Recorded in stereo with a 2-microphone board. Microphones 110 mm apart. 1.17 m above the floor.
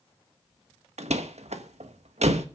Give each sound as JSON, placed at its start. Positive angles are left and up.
{"t": 1.0, "sound": "a door slam", "side_deg": -90, "distance_m": 1.1}